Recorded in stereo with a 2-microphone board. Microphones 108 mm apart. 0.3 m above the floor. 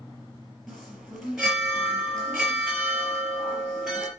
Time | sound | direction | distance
0.7 | a chime | centre (ahead or behind) | 4.5 m